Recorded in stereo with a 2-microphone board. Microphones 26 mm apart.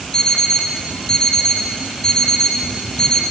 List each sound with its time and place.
0.1 s an alarm clock: 25° left (ahead or behind), 3 m